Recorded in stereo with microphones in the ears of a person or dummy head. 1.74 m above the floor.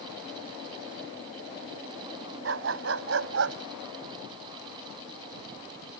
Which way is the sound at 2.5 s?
70° right (ahead or behind).